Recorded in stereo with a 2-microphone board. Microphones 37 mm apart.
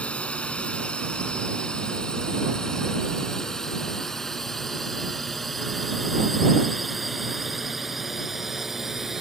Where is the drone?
35° left (ahead or behind); by 9.2 s 10° right (ahead or behind).